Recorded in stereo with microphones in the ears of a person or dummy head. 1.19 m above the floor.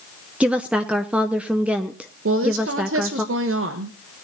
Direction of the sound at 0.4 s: 5° right (ahead or behind).